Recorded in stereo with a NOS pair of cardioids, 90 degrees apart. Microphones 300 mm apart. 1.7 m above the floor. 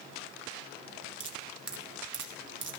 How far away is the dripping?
About 1.3 m.